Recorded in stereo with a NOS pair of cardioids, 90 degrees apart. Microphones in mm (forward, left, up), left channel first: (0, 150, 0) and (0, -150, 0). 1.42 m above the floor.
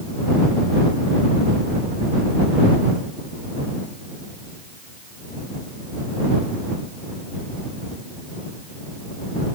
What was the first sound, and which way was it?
Only background noise.